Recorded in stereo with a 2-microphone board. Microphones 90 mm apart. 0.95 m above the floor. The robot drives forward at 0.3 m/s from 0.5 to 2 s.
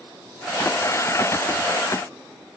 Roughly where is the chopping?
I don't hear chopping.